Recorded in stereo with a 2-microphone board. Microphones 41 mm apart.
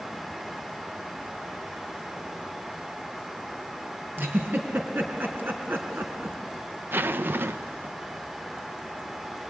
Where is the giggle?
60° right (ahead or behind), 3 m.